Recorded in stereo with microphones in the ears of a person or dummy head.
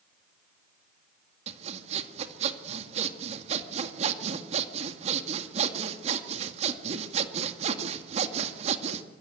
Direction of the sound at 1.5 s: 40° right (ahead or behind).